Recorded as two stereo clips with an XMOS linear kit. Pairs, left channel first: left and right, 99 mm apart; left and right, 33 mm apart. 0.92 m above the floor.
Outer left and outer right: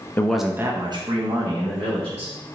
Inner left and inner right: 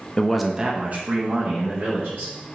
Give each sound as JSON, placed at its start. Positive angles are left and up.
{"t": 0.2, "sound": "a man speaking", "side_deg": 20, "distance_m": 0.7}